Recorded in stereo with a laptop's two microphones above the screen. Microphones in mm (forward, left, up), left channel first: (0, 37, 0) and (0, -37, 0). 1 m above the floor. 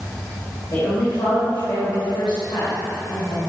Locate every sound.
0.7 s a woman speaking: 55° left (ahead or behind), 3.5 m; by 3.5 s 80° left, 4.5 m